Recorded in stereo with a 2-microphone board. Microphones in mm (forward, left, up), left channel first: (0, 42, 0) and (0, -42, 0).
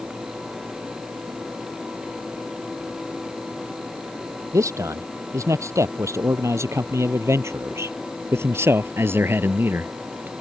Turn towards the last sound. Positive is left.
turn(degrees=-25)  # may be behind; listen again after turning